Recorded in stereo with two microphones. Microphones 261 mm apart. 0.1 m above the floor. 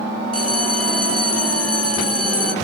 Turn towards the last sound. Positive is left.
turn(degrees=65)  # may be behind; listen again after turning